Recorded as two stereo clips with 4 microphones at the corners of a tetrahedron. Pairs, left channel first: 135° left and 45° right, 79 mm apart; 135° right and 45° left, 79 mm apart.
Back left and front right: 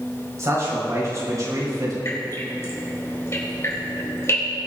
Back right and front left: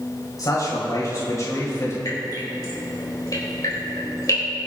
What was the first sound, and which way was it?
A man speaking, 95° right.